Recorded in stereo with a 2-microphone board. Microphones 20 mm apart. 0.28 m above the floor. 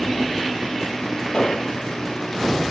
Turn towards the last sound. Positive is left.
turn(degrees=40)  # may be behind; listen again after turning